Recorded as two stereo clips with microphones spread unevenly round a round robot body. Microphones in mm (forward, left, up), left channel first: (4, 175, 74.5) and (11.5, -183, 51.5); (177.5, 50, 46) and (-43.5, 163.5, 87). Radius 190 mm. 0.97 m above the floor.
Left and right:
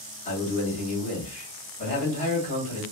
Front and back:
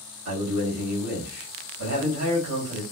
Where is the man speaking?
160° left, 1.4 m.